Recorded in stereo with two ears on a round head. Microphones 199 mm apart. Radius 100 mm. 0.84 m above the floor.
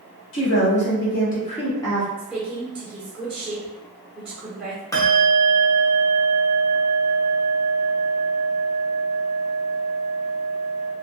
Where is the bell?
15° left (ahead or behind), 0.7 m.